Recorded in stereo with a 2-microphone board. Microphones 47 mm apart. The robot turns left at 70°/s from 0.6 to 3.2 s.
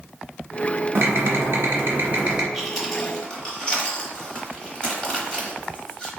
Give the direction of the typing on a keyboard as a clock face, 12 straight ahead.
2 o'clock.